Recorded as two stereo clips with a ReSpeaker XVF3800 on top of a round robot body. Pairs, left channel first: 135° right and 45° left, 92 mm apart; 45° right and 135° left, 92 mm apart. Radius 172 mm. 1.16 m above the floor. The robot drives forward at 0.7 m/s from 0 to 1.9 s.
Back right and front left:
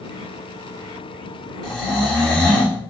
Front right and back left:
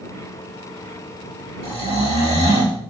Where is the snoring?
140° left, 3 m; by 2.8 s 145° left, 3.5 m.